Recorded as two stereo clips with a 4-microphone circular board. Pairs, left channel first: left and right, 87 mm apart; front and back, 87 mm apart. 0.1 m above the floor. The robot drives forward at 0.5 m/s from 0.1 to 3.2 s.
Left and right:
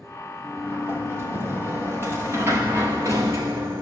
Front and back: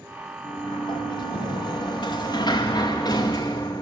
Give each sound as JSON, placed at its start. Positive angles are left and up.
{"t": 0.4, "sound": "a sliding door", "azimuth_deg": -25, "distance_m": 3.5}